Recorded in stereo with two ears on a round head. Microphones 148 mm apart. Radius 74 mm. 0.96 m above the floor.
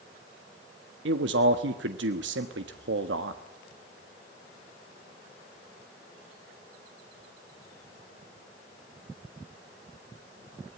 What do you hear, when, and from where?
1.1 s a man speaking: 80° right, 1.3 m